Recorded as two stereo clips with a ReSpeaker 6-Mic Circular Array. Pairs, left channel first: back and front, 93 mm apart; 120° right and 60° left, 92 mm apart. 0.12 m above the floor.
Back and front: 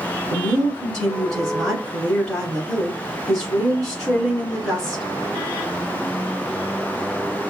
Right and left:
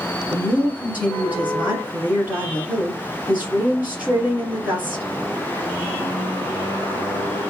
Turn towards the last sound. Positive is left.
turn(degrees=100)